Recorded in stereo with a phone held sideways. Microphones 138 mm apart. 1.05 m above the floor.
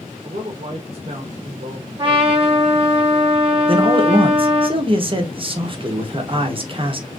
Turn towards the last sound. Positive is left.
turn(degrees=-40)  # may be behind; listen again after turning